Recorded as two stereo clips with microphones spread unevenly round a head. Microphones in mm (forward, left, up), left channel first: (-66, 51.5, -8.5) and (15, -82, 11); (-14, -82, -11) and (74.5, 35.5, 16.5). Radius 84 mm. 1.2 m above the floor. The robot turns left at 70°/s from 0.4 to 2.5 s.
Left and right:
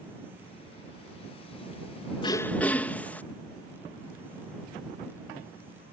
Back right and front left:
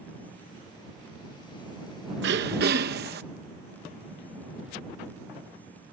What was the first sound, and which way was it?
Throat clearing, 60° left.